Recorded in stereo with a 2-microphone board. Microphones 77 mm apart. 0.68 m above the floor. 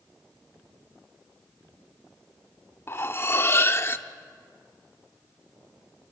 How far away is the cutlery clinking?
About 0.9 m.